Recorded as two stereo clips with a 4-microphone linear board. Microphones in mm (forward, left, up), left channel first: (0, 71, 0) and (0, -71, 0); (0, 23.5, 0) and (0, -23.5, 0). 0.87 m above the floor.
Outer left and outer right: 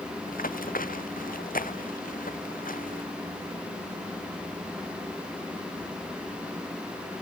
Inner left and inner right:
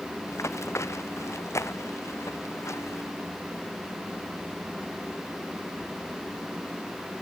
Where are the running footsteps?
80° left; by 3.0 s 75° left (ahead or behind).